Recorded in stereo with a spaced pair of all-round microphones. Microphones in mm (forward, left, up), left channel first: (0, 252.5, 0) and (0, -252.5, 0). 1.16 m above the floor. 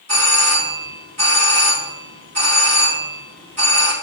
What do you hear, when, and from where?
0.1 s a doorbell: 30° right (ahead or behind), 4 m